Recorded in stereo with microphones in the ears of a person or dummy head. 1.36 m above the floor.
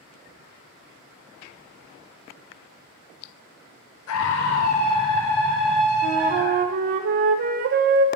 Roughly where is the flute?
Right.